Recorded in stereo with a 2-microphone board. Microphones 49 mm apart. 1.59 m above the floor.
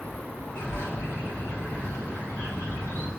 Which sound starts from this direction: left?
A bird, at 0.6 s.